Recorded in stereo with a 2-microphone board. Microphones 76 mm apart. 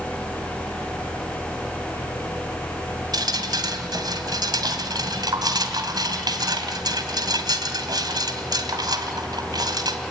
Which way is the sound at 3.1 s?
70° right (ahead or behind).